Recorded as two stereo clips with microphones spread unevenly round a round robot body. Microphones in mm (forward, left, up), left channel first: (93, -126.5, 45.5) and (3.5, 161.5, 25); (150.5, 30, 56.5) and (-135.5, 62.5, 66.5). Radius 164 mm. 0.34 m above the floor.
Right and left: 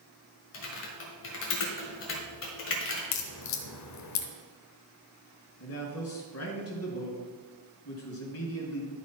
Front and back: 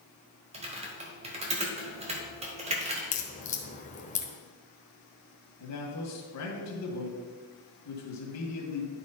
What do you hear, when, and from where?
0.5 s typing on a keyboard: 120° right, 1.5 m
3.1 s a crack: 65° right, 1.0 m
5.6 s a man speaking: 30° right, 2 m